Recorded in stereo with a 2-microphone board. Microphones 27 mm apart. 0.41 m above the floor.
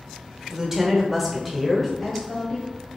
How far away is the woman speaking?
About 1.0 m.